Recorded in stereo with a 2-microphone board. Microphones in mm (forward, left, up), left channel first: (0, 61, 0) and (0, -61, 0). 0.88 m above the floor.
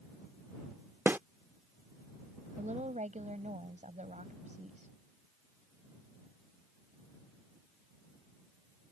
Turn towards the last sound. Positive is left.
turn(degrees=-80)